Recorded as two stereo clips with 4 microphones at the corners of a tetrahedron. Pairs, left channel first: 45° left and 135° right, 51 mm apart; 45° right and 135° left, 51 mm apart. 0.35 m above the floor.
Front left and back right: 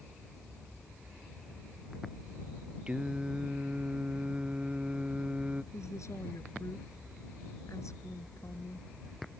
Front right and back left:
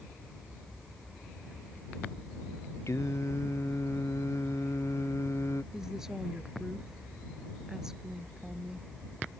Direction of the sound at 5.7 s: 55° left.